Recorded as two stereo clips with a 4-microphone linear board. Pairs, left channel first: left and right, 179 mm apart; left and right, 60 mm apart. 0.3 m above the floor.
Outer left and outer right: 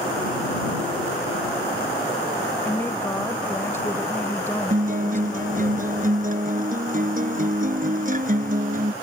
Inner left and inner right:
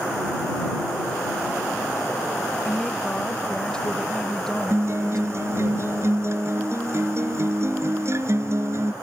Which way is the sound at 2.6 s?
15° left (ahead or behind).